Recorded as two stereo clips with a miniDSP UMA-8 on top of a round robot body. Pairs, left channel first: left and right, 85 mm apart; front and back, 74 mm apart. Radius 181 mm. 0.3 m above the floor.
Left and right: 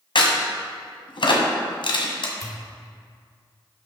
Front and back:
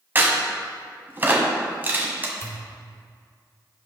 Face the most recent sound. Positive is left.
turn(degrees=50)